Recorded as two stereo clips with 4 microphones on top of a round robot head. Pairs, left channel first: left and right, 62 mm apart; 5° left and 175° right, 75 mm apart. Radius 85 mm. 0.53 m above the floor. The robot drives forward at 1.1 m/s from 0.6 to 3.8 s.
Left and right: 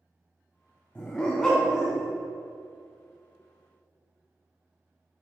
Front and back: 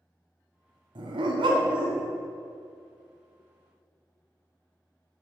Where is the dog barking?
165° left, 1.0 m; by 2.1 s 175° left, 2 m.